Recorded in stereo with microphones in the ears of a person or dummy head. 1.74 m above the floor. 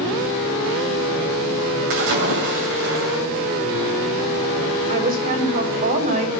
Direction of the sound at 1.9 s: 55° right (ahead or behind).